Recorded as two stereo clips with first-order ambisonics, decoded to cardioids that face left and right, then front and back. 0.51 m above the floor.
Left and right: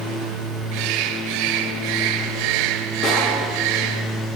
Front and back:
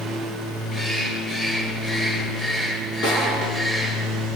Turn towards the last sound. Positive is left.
turn(degrees=45)